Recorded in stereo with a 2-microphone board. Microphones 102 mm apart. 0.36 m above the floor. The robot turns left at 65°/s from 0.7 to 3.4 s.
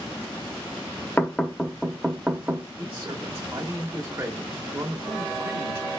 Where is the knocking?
15° left (ahead or behind), 0.8 m; by 2.7 s 20° right (ahead or behind), 0.8 m.